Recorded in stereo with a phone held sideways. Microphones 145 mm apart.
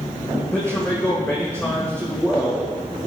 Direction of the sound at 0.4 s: 15° left (ahead or behind).